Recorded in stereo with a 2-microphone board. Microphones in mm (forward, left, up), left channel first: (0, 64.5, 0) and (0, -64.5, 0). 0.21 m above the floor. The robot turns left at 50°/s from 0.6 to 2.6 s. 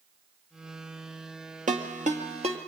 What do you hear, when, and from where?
1.7 s a ringtone: 80° right, 2.5 m; by 2.6 s 50° right (ahead or behind), 2.5 m